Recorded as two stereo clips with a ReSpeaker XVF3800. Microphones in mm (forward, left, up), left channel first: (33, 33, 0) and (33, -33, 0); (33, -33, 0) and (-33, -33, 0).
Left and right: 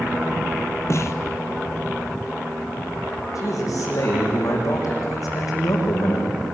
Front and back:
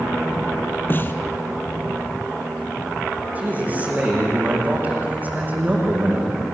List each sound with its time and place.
0.9 s a snare drum: 50° left, 1.5 m
3.4 s a man speaking: 115° left, 8.5 m